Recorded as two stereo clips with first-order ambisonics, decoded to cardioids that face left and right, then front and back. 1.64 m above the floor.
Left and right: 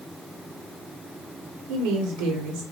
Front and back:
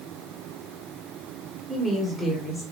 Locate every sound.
1.7 s a woman speaking: 80° right, 1.1 m